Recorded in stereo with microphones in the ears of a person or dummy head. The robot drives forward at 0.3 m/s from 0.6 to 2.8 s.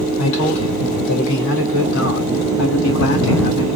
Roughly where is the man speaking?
Left.